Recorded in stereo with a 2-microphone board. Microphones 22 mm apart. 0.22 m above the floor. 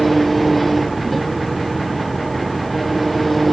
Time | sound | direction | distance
0.0 | an engine running | 5° left (ahead or behind) | ?